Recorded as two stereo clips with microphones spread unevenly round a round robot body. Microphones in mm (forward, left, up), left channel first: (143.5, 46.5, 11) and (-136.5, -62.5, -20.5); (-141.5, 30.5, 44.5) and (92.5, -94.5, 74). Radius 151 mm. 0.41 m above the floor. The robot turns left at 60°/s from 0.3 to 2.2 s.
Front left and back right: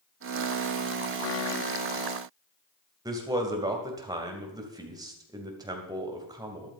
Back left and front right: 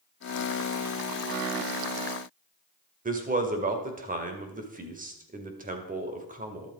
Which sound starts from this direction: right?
A man speaking, at 3.0 s.